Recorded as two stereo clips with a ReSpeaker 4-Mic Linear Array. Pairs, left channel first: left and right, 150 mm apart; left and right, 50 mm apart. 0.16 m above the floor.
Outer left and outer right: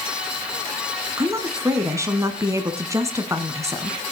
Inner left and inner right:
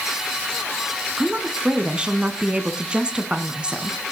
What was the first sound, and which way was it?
A woman speaking, 20° right (ahead or behind).